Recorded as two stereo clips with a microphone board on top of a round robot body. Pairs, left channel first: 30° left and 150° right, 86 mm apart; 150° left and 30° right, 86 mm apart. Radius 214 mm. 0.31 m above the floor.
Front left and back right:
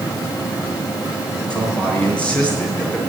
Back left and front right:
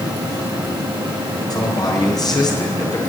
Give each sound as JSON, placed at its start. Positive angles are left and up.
{"t": 1.5, "sound": "a man speaking", "azimuth_deg": 110, "distance_m": 6.0}